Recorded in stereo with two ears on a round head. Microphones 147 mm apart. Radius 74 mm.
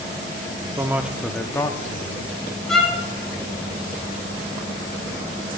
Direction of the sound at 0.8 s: 15° right (ahead or behind).